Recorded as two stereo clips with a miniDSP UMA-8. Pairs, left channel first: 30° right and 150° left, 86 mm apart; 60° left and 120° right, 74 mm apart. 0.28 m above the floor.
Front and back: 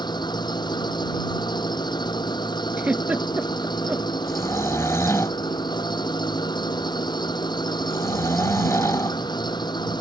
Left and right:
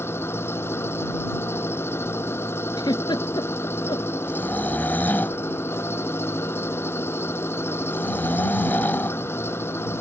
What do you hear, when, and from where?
0.0 s an engine running: straight ahead
2.8 s a giggle: 80° left
4.3 s snoring: 5° left